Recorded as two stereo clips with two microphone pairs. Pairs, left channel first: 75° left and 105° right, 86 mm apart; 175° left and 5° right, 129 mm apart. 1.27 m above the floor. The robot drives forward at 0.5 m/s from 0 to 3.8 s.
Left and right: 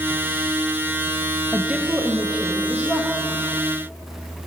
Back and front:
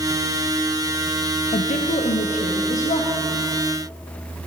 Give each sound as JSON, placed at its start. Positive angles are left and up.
{"t": 1.5, "sound": "a woman speaking", "azimuth_deg": 175, "distance_m": 0.5}